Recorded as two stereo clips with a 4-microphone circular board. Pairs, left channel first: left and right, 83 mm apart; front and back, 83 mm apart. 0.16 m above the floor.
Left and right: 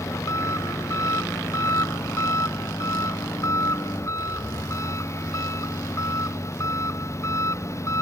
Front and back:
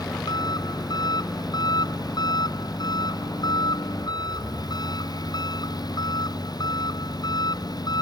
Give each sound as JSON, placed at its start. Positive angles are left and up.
{"t": 0.0, "sound": "an engine running", "azimuth_deg": 35}